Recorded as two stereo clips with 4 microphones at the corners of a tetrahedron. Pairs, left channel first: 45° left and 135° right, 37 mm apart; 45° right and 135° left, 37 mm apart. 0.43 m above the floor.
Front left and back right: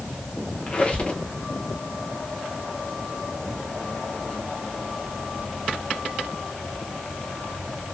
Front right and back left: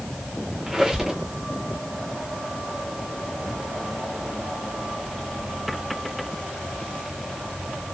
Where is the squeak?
70° left, 0.6 m.